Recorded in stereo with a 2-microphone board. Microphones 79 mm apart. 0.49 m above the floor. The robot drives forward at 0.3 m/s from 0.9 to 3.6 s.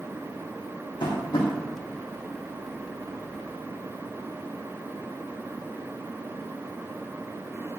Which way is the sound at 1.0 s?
85° left.